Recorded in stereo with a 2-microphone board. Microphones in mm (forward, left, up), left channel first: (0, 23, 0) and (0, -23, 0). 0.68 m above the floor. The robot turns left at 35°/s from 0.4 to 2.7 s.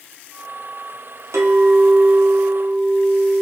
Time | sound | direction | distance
1.3 | a clink | 95° right | 0.5 m